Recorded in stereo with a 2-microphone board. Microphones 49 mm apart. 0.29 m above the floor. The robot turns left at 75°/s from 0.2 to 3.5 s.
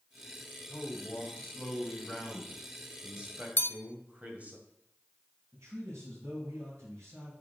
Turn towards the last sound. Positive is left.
turn(degrees=-75)  # may be behind; listen again after turning